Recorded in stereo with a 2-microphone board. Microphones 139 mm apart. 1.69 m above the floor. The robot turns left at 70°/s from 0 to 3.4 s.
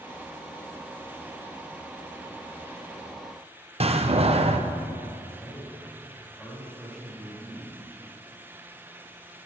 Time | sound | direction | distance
3.8 | a door slam | 50° right (ahead or behind) | 0.8 m
5.4 | a man speaking | 5° left (ahead or behind) | 4 m